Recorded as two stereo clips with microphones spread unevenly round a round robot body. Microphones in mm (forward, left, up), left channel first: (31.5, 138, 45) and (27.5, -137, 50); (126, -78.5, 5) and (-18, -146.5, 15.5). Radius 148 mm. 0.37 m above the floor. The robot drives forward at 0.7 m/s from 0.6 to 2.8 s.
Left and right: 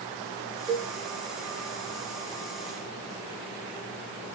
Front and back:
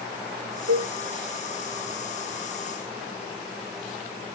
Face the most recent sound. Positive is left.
turn(degrees=-170)